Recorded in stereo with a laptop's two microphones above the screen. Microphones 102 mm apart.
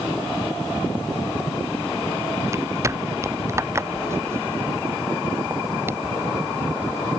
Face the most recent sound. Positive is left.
turn(degrees=-20)  # may be behind; listen again after turning